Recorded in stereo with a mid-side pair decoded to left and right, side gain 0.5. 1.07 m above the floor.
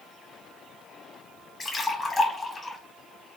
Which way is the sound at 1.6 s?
30° left.